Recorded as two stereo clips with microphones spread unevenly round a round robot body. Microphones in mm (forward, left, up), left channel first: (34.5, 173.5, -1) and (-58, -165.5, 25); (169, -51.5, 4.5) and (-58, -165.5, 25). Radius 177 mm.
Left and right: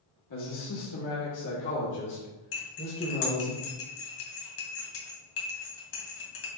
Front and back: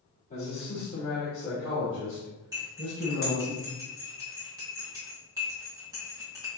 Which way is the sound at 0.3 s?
80° left.